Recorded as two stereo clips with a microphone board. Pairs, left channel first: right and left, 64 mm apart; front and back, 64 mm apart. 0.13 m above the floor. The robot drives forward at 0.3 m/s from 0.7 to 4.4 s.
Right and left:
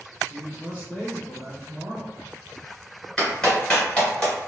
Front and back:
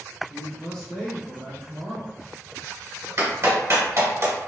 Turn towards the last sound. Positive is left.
turn(degrees=-165)